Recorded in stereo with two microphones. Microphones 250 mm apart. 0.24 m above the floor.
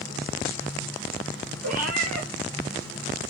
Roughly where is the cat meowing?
Right.